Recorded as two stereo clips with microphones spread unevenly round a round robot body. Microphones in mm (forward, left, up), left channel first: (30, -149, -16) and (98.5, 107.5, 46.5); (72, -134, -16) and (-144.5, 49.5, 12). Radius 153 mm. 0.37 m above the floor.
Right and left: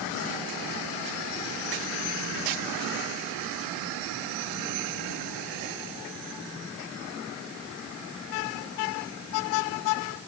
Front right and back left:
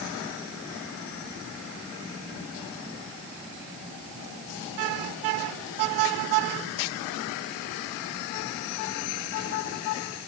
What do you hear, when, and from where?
Only background noise.